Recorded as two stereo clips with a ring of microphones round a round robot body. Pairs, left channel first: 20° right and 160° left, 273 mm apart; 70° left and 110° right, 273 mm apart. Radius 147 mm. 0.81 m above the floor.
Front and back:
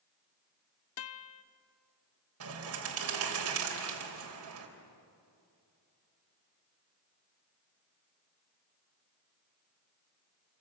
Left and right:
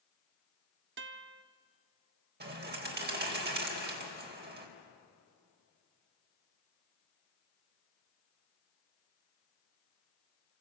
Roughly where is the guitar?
Ahead right.